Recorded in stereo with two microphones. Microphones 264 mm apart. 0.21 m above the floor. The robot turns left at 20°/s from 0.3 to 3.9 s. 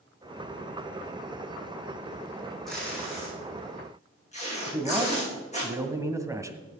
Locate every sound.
2.7 s tape being pulled: centre (ahead or behind), 7.5 m; by 5.7 s 25° left (ahead or behind), 7.5 m
4.7 s a man speaking: 10° right (ahead or behind), 1.4 m